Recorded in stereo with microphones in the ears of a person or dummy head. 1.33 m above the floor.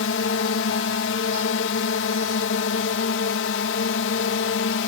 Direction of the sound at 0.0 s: 65° left (ahead or behind).